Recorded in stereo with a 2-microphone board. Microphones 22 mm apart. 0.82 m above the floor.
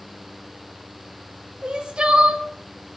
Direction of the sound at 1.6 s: 45° right (ahead or behind).